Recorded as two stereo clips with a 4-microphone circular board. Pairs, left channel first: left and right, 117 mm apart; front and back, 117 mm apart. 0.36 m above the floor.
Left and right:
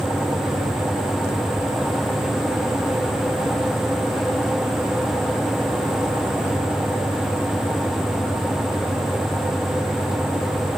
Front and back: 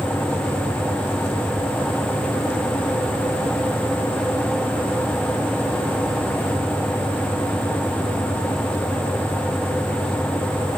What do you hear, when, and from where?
Only background noise.